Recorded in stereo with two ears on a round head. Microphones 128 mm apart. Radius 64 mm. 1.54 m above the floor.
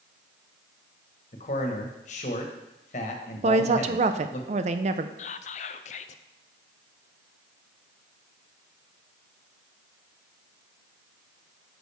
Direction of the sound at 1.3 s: 50° left (ahead or behind).